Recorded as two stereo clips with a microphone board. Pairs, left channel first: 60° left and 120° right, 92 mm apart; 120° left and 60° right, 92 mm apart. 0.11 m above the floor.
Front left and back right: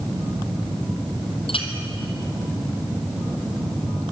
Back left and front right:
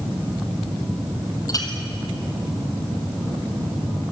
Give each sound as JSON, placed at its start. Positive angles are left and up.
{"t": 1.5, "sound": "a clink", "azimuth_deg": 75, "distance_m": 3.0}